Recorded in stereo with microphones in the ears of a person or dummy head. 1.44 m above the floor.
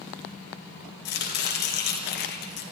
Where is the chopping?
55° left (ahead or behind), 1.9 m.